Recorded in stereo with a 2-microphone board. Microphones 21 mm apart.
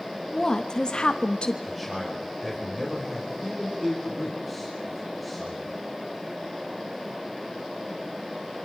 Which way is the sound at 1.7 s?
5° left (ahead or behind).